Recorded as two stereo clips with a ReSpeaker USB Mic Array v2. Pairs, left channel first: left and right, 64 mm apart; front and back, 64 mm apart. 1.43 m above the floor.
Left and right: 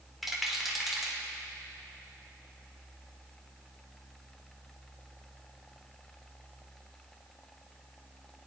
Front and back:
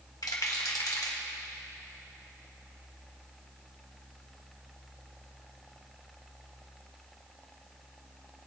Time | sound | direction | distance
0.2 | a rattle | 5° right | 1.7 m